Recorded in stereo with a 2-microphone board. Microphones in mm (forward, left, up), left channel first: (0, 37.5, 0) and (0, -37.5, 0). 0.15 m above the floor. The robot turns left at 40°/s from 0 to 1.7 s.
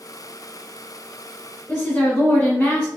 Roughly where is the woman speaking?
Centre.